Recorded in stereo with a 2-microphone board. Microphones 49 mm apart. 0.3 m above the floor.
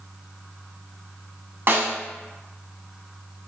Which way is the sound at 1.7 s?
50° right (ahead or behind).